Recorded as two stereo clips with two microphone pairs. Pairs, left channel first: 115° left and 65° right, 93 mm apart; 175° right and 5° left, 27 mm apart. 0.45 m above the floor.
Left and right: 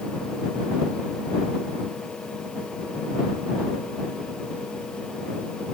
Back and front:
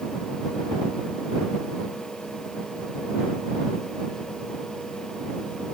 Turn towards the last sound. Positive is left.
No sound to turn to.